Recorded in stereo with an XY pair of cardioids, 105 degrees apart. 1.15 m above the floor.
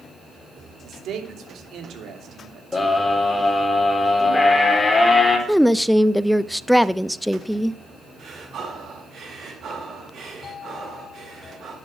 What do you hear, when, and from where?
0.8 s a man speaking: 65° right, 3 m
2.7 s a scream: 25° left, 3.5 m
5.5 s a woman speaking: 5° left, 0.5 m
8.2 s breathing: 55° right, 5.5 m